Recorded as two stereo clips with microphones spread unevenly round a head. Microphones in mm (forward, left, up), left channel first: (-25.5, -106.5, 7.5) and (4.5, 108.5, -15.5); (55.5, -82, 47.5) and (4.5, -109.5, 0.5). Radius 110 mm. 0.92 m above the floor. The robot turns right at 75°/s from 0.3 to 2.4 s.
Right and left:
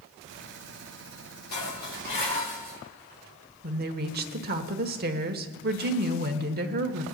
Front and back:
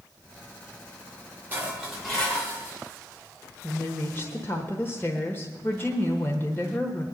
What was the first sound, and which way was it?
Dishes clattering, 100° right.